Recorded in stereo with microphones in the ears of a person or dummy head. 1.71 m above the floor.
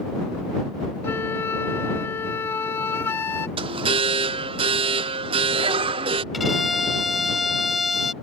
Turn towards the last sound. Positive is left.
turn(degrees=0)  # may be behind; listen again after turning